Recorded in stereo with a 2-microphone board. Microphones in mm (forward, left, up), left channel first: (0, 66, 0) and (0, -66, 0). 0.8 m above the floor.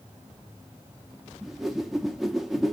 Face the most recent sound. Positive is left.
turn(degrees=0)  # may be behind; listen again after turning